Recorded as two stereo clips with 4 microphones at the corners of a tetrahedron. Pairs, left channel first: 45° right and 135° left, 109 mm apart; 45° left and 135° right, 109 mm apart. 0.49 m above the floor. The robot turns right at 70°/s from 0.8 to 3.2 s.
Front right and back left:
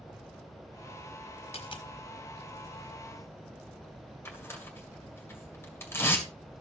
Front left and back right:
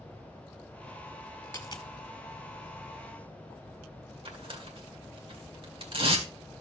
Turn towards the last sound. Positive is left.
turn(degrees=-110)